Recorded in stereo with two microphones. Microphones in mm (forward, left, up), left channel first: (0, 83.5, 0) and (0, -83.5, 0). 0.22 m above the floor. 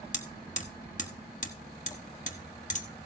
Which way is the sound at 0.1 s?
50° left (ahead or behind).